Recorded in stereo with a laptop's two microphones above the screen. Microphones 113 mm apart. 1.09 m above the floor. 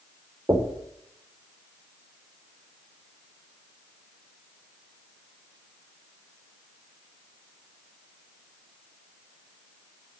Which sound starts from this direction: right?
Knocking, at 0.5 s.